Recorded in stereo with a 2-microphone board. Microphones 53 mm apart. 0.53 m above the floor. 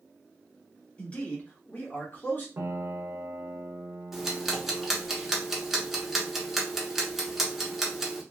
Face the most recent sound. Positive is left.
turn(degrees=-5)  # may be behind; listen again after turning